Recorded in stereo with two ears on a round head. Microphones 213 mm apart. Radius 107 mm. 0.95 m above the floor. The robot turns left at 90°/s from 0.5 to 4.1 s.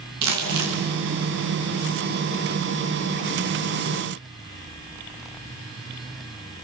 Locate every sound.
0.2 s crumpling: 80° right, 6.5 m; by 0.8 s 70° right (ahead or behind), 6.5 m